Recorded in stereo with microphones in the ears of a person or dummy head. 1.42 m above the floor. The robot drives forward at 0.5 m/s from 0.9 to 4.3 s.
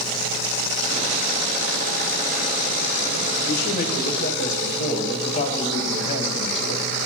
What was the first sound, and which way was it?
A man speaking, 60° left (ahead or behind).